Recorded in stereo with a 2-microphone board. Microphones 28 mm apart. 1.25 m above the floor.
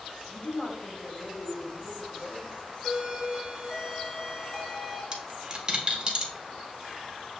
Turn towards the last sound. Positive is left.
turn(degrees=-30)  # may be behind; listen again after turning